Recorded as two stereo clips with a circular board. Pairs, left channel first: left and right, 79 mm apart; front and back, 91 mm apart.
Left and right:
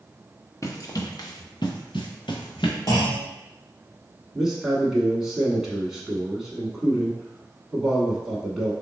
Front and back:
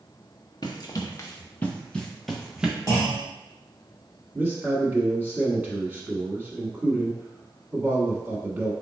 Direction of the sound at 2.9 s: 125° left.